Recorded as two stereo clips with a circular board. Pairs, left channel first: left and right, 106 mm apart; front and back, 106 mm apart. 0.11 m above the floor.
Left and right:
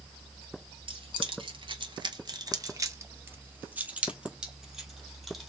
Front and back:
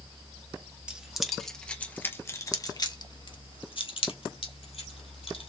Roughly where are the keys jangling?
Right.